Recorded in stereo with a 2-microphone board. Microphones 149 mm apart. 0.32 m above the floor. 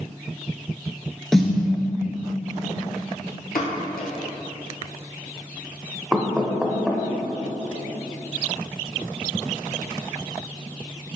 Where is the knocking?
5° right (ahead or behind), 0.5 m.